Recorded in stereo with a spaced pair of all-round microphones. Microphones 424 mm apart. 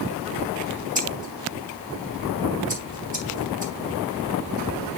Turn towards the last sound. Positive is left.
turn(degrees=-20)  # may be behind; listen again after turning